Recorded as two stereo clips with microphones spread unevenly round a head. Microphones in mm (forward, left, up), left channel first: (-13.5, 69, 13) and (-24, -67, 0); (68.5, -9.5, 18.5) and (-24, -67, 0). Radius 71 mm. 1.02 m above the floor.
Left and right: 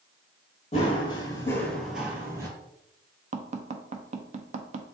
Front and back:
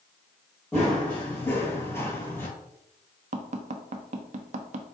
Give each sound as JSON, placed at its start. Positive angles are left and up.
{"t": 0.7, "sound": "running footsteps", "azimuth_deg": 105, "distance_m": 1.4}
{"t": 3.3, "sound": "tapping", "azimuth_deg": -135, "distance_m": 0.6}